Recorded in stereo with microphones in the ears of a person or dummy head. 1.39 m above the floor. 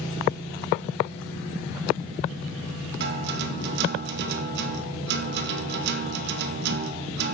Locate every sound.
3.0 s a guitar: 60° right (ahead or behind), 1.0 m